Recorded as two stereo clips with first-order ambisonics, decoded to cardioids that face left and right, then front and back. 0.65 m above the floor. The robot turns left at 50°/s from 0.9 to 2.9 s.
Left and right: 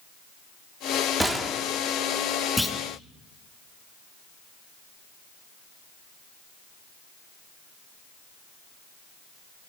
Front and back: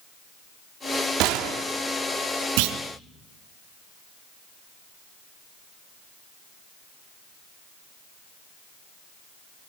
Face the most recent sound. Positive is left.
turn(degrees=160)